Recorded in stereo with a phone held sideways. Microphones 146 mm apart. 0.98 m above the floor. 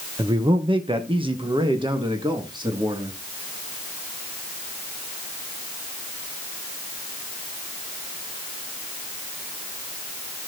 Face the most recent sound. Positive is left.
turn(degrees=-30)  # may be behind; listen again after turning